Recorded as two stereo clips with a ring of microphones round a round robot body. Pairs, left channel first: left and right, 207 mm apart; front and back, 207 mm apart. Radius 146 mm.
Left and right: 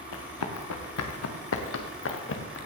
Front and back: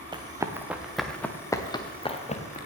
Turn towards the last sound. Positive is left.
turn(degrees=55)